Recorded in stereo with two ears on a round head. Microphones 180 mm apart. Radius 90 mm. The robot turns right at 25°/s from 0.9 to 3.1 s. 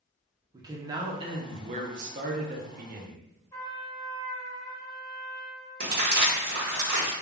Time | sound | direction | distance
0.5 | a man speaking | 155° right | 0.5 m
3.5 | a trumpet | 15° left (ahead or behind) | 0.7 m
5.8 | crumpling | 55° right (ahead or behind) | 1.1 m